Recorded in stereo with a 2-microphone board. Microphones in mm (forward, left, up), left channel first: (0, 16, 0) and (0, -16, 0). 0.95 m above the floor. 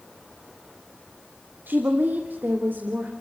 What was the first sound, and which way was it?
A woman speaking, 80° right.